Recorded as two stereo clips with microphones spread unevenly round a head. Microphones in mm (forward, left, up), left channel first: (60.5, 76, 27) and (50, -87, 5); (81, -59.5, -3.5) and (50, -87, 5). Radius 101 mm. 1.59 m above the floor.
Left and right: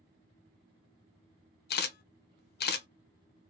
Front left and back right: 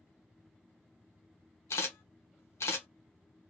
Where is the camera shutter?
70° left, 0.6 m.